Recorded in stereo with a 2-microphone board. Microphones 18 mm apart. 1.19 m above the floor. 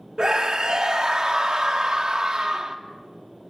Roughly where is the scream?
Right.